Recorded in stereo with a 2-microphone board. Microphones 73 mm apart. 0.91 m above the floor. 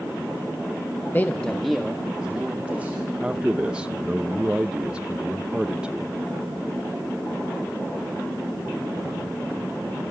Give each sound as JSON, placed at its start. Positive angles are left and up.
{"t": 1.1, "sound": "a man speaking", "side_deg": 30, "distance_m": 1.0}
{"t": 3.2, "sound": "a man speaking", "side_deg": -15, "distance_m": 0.5}